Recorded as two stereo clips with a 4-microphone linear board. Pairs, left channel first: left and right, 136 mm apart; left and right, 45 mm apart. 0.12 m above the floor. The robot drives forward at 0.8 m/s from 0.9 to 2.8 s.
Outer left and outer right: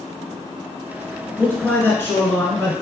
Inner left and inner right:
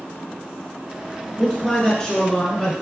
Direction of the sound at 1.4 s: 15° left (ahead or behind).